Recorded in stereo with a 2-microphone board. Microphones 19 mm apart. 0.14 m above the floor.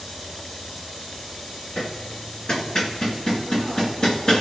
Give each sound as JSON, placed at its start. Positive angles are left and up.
{"t": 1.8, "sound": "hammering", "side_deg": 35, "distance_m": 1.9}